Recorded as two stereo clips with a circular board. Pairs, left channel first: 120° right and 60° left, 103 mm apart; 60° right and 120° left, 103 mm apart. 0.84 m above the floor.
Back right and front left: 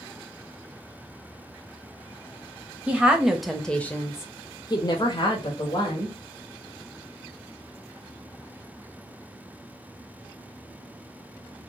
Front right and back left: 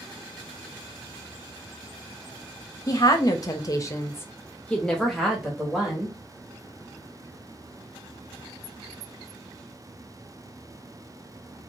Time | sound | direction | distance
2.9 | a woman speaking | 15° right | 0.9 m